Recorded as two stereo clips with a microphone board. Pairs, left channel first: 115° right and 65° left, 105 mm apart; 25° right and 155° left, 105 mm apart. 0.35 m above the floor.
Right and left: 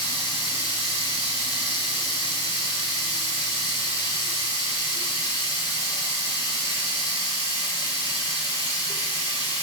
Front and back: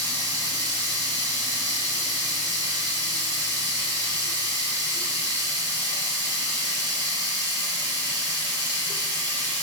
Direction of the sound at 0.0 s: 150° right.